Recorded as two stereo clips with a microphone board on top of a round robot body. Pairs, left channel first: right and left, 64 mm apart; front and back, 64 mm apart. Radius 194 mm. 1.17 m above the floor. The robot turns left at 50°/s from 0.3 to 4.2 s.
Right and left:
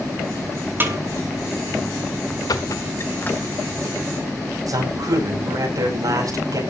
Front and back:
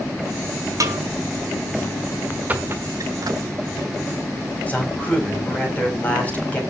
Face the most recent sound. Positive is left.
turn(degrees=65)